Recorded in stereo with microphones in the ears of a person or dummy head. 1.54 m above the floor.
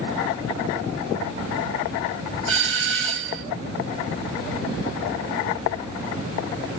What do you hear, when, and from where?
2.5 s a doorbell: 65° right (ahead or behind), 1.5 m